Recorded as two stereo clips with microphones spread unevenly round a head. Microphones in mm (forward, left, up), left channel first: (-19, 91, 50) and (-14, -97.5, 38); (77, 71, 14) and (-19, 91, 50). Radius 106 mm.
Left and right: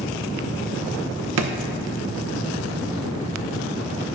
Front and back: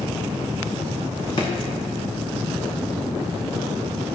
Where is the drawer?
90° right, 0.8 m.